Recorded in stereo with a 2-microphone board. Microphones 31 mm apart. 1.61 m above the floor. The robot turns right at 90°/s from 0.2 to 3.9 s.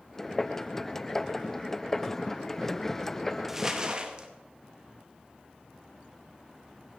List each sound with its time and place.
3.5 s crumpling: 170° right, 1.0 m; by 4.3 s 130° right, 1.0 m